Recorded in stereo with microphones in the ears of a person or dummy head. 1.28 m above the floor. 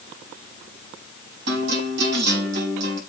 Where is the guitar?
70° right (ahead or behind), 5 m.